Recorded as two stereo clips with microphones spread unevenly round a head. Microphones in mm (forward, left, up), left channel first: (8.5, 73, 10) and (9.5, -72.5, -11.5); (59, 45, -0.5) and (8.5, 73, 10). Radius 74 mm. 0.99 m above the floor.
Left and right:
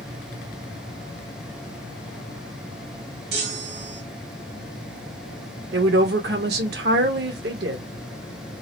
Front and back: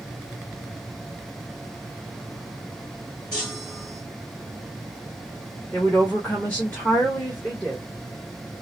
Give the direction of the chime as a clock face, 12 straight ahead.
4 o'clock.